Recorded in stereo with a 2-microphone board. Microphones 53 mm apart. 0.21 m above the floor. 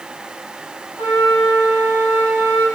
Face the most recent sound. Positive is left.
turn(degrees=-65)  # may be behind; listen again after turning